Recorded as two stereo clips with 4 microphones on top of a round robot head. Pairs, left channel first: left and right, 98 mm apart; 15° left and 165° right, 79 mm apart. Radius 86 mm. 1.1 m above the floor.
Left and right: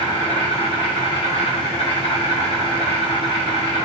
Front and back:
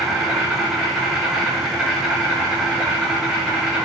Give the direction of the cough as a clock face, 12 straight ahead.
I don't hear a cough.